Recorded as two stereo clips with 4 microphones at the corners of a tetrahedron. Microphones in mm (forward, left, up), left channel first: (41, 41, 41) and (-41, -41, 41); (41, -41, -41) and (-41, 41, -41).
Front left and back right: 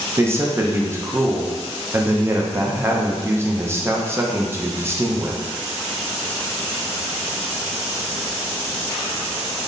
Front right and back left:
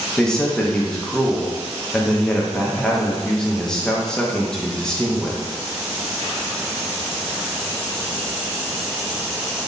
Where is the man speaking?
115° right, 0.5 m.